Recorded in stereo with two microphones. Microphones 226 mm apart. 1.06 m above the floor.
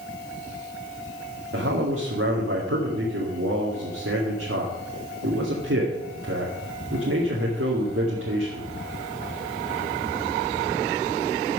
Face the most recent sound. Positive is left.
turn(degrees=-70)  # may be behind; listen again after turning